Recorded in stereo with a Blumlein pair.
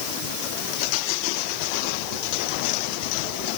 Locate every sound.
Only background noise.